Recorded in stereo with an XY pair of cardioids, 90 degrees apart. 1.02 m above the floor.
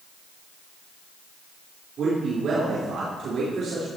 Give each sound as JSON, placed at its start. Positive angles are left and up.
{"t": 2.0, "sound": "a man speaking", "azimuth_deg": -65, "distance_m": 4.0}